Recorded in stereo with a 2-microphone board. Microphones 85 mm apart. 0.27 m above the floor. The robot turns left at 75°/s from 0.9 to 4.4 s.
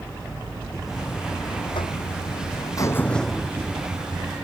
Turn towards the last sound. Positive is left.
turn(degrees=-80)